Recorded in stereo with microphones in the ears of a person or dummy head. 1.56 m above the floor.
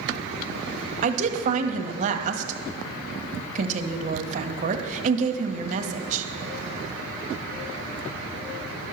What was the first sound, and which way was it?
A woman speaking, 45° right (ahead or behind).